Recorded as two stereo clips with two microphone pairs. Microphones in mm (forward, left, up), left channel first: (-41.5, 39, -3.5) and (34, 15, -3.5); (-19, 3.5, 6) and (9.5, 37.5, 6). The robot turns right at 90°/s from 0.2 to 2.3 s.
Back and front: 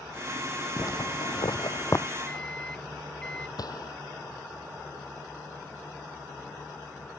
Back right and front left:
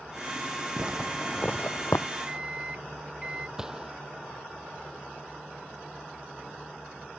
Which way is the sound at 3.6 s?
130° left.